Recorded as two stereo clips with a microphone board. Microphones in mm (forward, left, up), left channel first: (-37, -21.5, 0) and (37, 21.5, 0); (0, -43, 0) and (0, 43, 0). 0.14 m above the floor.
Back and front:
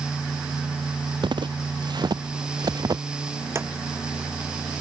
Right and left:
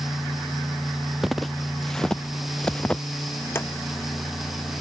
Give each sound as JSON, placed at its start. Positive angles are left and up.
{"t": 1.2, "sound": "footsteps", "azimuth_deg": 0}
{"t": 3.5, "sound": "a drawer", "azimuth_deg": -30}